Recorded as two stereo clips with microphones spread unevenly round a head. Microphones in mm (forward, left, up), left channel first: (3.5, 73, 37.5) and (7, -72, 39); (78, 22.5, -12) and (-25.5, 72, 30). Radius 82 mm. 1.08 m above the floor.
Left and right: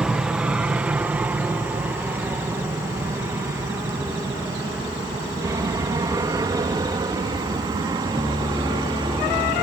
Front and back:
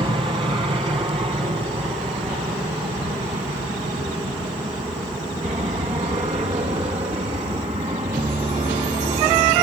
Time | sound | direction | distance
0.0 | an aircraft | 165° right | ?